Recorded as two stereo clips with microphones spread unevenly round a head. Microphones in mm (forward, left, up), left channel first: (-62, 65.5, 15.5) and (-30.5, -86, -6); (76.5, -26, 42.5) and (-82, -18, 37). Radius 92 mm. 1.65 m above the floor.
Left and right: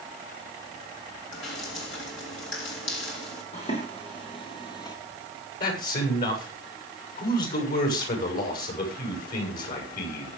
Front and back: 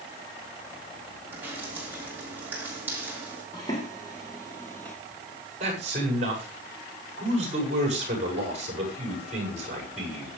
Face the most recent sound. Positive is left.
turn(degrees=125)